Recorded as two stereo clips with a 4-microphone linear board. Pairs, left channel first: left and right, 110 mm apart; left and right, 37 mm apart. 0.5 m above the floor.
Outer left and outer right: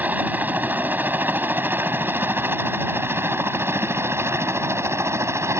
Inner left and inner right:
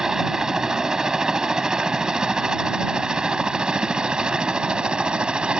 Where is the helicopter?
15° right (ahead or behind); by 5.6 s 25° right (ahead or behind).